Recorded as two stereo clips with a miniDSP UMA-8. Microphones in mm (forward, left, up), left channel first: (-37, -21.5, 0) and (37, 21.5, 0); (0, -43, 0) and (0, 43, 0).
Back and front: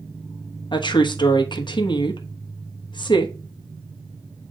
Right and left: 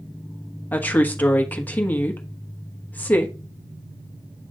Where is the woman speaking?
160° right, 1.1 m.